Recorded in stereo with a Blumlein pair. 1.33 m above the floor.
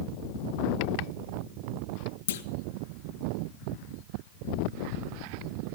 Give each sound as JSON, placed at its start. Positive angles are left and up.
{"t": 2.3, "sound": "a clunk", "azimuth_deg": 60, "distance_m": 0.8}